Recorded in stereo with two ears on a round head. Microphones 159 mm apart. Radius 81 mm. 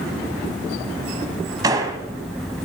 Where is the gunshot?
20° right (ahead or behind), 1.1 m.